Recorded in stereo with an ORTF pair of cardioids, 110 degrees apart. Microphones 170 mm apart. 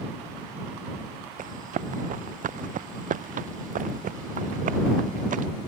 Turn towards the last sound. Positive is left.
turn(degrees=-50)